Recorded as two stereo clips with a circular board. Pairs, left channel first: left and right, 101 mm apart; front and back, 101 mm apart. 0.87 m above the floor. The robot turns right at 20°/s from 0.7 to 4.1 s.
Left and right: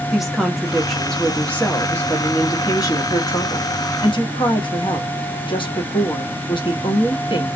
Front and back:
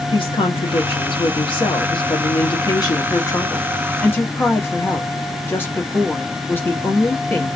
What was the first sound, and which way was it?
A woman speaking, straight ahead.